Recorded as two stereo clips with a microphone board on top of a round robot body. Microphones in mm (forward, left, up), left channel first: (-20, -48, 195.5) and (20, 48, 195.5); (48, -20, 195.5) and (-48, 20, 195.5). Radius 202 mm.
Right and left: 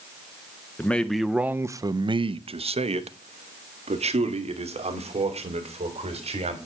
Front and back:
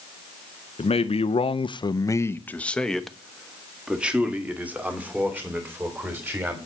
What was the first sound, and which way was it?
A man speaking, 40° right.